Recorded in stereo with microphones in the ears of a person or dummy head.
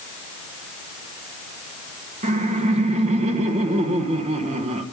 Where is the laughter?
35° right (ahead or behind), 1.3 m.